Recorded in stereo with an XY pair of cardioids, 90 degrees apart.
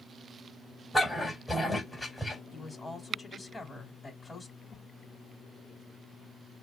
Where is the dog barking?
10° left, 2.5 m.